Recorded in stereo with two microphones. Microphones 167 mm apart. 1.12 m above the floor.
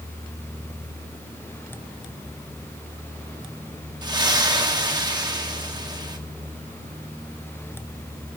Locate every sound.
4.0 s a splash: 25° right (ahead or behind), 2.5 m